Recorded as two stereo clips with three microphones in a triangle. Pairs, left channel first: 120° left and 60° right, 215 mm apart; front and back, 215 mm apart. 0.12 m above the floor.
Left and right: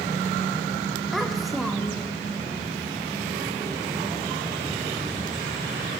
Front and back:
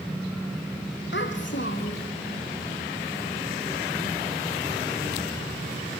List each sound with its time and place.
1.1 s a child speaking: 30° left, 3.5 m